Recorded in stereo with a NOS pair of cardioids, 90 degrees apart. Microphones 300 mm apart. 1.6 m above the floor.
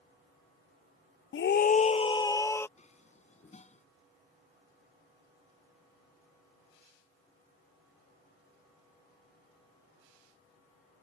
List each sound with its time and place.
1.3 s a scream: 45° left; by 2.7 s 10° left
2.8 s dishes clattering: 25° left